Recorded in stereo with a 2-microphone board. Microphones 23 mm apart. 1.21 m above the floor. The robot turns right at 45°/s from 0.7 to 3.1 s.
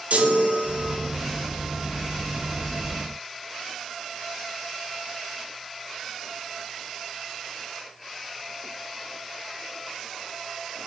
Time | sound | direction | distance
0.1 | a chime | 70° right (ahead or behind) | 0.7 m